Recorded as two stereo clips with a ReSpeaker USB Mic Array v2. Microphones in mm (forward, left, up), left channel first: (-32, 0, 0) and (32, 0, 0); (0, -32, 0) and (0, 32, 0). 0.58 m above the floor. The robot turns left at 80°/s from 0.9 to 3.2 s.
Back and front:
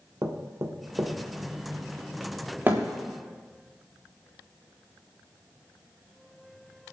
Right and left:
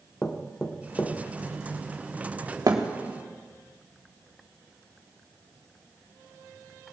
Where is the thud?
60° left, 3.5 m; by 2.9 s 45° left, 3.5 m.